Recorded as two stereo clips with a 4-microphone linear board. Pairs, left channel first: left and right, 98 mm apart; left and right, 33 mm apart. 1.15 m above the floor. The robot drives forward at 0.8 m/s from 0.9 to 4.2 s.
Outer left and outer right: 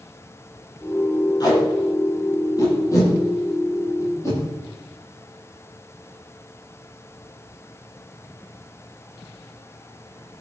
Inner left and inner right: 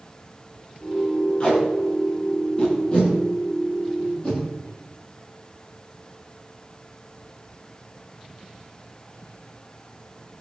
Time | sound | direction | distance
1.4 | tape being pulled | 45° left (ahead or behind) | 8 m